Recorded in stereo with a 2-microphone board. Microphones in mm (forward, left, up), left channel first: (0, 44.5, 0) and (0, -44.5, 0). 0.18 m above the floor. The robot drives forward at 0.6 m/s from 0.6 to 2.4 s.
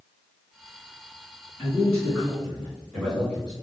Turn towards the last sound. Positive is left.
turn(degrees=10)  # may be behind; listen again after turning